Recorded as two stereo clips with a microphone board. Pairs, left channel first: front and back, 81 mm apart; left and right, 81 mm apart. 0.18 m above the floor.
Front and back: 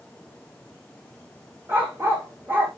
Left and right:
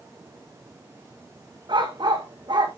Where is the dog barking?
115° right, 3 m.